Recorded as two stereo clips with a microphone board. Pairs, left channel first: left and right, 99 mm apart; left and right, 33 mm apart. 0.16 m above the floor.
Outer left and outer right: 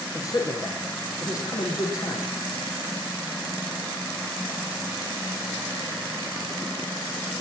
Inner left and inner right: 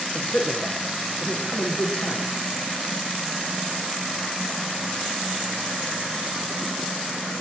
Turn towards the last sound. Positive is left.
turn(degrees=35)  # may be behind; listen again after turning